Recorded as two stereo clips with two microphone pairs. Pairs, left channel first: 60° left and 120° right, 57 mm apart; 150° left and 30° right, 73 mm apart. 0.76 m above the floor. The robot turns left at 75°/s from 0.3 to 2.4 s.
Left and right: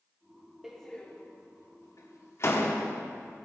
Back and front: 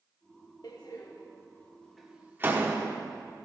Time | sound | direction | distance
0.6 | a door slam | 160° left | 1.3 m